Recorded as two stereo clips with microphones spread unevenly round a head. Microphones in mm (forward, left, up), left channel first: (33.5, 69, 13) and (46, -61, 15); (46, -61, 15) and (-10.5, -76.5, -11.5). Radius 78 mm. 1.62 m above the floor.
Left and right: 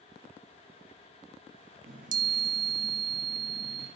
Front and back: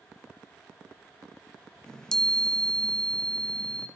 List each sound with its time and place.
1.9 s a chime: 60° right, 0.8 m